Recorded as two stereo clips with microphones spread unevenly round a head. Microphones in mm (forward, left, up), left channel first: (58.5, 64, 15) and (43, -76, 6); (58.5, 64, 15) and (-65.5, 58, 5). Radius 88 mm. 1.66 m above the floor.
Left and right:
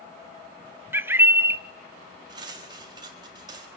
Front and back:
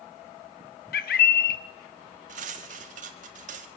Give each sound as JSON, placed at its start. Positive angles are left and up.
{"t": 0.9, "sound": "a bird", "azimuth_deg": -20, "distance_m": 0.8}
{"t": 2.3, "sound": "cutlery clinking", "azimuth_deg": -165, "distance_m": 1.6}